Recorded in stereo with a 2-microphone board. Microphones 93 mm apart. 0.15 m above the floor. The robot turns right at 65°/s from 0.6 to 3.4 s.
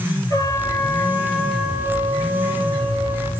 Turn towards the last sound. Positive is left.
turn(degrees=-45)